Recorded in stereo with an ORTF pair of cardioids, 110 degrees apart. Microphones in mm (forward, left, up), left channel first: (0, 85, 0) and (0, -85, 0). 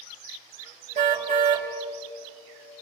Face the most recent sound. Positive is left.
turn(degrees=-45)